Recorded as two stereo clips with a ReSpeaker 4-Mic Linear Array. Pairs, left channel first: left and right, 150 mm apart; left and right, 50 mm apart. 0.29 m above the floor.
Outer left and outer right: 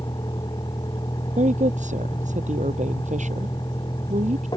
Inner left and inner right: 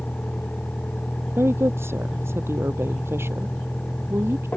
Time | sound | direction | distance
0.0 | a vehicle | 25° left (ahead or behind) | ?
1.4 | a woman speaking | 55° right (ahead or behind) | ?